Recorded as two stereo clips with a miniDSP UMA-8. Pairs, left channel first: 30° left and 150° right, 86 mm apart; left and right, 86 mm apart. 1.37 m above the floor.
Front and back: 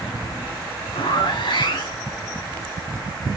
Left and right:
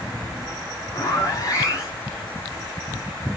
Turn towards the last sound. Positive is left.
turn(degrees=40)